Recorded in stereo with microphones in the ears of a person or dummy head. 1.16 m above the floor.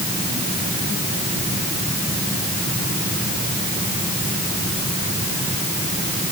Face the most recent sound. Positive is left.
No sound to turn to.